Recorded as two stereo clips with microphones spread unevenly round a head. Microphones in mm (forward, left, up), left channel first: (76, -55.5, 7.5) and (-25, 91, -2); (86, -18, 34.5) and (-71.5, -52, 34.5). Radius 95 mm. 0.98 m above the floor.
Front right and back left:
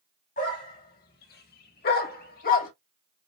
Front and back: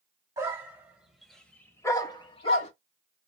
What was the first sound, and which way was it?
A dog barking, 100° right.